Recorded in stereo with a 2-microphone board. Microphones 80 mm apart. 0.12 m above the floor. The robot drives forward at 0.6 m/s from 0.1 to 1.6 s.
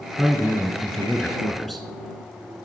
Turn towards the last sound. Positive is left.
turn(degrees=0)  # may be behind; listen again after turning